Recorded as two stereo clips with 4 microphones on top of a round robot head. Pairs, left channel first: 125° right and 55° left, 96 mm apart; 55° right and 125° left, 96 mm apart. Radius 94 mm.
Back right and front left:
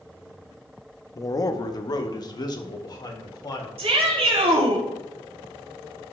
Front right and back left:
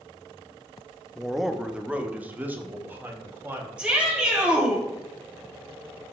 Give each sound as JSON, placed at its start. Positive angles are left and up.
{"t": 1.1, "sound": "a man speaking", "azimuth_deg": -140, "distance_m": 0.8}
{"t": 3.8, "sound": "a shout", "azimuth_deg": 45, "distance_m": 4.0}